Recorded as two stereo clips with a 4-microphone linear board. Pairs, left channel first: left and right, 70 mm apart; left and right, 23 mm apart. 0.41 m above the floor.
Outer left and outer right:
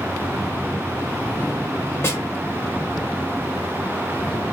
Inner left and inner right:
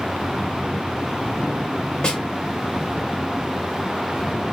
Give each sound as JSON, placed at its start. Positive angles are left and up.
{"t": 2.0, "sound": "a snare drum", "side_deg": 35, "distance_m": 1.3}